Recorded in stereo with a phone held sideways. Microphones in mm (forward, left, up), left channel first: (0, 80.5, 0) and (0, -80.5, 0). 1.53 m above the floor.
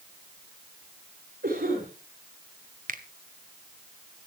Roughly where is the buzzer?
No buzzer in this recording.